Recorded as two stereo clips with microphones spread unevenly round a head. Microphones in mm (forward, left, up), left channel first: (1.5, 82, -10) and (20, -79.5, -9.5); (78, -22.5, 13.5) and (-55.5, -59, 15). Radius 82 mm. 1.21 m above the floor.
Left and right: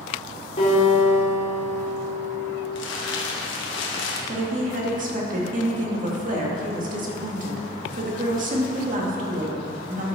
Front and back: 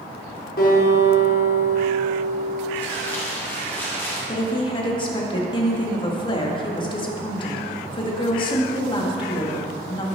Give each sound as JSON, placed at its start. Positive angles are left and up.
{"t": 0.6, "sound": "a guitar", "azimuth_deg": 50, "distance_m": 4.0}
{"t": 2.8, "sound": "crumpling", "azimuth_deg": 95, "distance_m": 1.5}
{"t": 4.3, "sound": "a woman speaking", "azimuth_deg": -40, "distance_m": 2.0}